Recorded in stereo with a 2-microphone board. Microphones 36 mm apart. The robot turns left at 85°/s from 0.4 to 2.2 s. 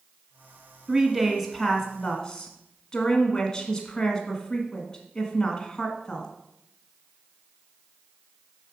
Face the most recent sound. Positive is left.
turn(degrees=20)  # may be behind; listen again after turning